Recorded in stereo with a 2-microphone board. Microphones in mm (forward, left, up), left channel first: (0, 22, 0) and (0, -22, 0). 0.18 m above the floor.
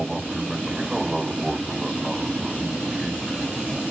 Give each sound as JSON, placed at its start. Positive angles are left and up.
{"t": 0.0, "sound": "an aircraft", "side_deg": -5}